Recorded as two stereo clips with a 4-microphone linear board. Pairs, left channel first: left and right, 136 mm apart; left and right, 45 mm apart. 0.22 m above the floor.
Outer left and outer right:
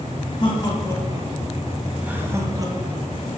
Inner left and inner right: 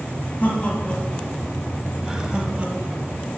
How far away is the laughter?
About 1.6 m.